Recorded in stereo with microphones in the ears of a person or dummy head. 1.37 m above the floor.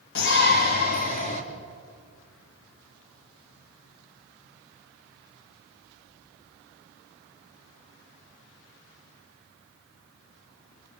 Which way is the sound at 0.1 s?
60° left (ahead or behind).